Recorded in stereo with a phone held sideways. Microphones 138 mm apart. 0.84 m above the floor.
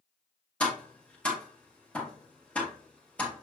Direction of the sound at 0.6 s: 10° left (ahead or behind).